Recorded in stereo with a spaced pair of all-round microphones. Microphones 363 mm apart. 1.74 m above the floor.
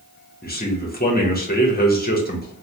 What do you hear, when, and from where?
0.4 s a man speaking: 25° left (ahead or behind), 0.8 m